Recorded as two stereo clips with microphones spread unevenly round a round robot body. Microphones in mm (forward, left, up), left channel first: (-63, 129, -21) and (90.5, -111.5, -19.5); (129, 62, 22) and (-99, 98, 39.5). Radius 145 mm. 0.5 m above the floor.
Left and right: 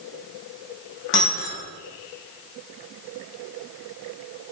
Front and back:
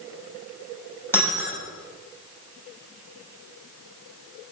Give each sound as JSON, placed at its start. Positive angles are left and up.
{"t": 1.1, "sound": "breaking glass", "azimuth_deg": 70, "distance_m": 7.0}